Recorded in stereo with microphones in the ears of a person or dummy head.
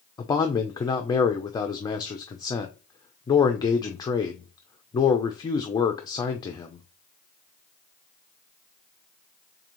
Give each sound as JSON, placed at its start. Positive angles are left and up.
{"t": 0.2, "sound": "a man speaking", "side_deg": 20, "distance_m": 0.6}